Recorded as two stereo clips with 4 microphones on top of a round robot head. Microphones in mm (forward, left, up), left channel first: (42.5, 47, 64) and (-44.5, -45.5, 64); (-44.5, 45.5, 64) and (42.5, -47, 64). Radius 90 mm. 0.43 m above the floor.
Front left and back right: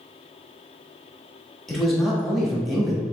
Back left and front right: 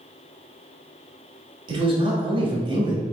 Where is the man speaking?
40° right, 1.4 m.